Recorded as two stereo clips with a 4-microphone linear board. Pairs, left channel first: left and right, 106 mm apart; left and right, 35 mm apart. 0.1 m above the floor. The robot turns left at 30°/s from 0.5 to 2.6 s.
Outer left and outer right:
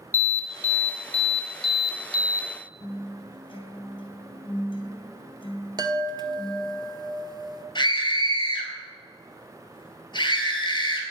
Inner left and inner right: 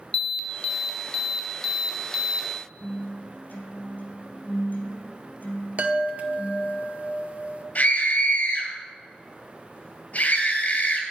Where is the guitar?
55° left (ahead or behind), 2.5 m.